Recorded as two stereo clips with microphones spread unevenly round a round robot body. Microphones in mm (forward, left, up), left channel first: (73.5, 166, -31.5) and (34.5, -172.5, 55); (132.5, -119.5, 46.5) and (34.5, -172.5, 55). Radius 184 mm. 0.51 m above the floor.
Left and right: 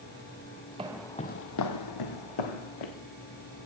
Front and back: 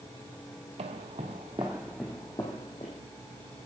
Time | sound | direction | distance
0.8 | footsteps | 165° right | 0.9 m